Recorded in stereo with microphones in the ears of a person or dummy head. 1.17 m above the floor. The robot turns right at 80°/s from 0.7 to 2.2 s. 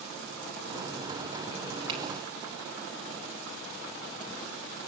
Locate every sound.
1.9 s a finger snap: 30° right (ahead or behind), 3.5 m; by 2.0 s 20° right (ahead or behind), 3.5 m